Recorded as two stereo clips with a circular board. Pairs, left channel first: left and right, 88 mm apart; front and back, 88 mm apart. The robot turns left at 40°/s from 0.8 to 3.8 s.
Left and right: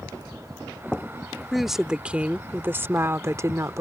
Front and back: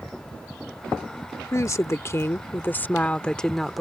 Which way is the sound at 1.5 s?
Straight ahead.